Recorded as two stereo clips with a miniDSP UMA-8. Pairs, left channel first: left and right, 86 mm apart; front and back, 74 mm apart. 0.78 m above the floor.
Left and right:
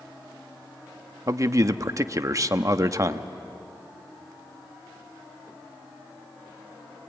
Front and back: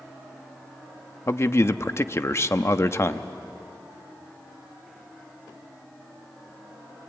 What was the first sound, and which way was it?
A man speaking, 45° right.